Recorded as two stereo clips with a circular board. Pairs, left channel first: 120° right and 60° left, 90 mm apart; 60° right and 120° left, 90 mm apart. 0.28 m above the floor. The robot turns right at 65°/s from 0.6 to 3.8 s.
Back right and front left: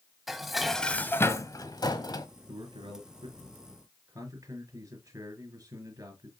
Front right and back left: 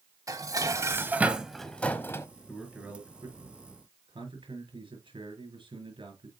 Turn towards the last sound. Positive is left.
turn(degrees=110)